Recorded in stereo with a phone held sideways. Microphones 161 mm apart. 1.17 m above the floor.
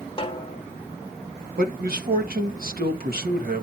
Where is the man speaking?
70° right (ahead or behind), 1.5 m.